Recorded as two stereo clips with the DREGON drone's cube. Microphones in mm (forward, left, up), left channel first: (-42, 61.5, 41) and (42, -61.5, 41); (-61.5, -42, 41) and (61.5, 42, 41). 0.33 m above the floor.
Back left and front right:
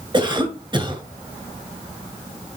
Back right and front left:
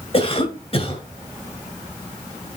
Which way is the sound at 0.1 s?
105° right.